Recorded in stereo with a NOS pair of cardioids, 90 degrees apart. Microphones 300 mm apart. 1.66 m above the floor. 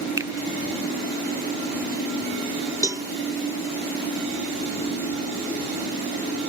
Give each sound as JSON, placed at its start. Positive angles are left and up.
{"t": 0.2, "sound": "a finger snap", "azimuth_deg": -10}
{"t": 2.8, "sound": "a cowbell", "azimuth_deg": -10}